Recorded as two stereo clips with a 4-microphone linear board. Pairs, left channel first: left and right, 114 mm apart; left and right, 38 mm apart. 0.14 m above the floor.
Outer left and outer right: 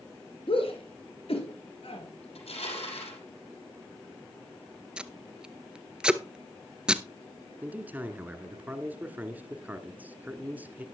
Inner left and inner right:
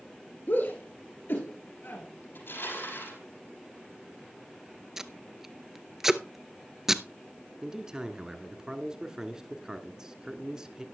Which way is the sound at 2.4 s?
65° left (ahead or behind).